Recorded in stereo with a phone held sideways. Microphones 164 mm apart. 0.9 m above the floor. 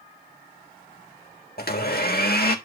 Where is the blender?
70° left (ahead or behind), 1.4 m.